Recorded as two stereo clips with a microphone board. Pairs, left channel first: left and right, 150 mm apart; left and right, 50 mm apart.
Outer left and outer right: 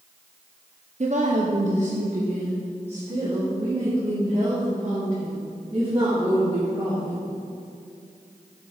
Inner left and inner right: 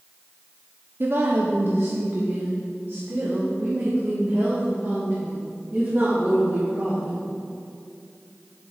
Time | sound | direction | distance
1.0 | a woman speaking | 50° right (ahead or behind) | 0.6 m